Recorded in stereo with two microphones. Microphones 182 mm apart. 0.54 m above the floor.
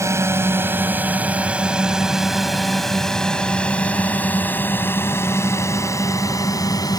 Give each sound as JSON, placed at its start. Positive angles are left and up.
{"t": 0.0, "sound": "a drone", "side_deg": -15}